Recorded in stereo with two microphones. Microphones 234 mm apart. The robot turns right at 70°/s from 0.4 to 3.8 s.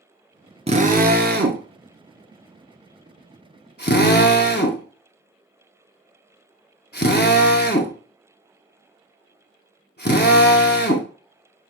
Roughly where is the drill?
Right.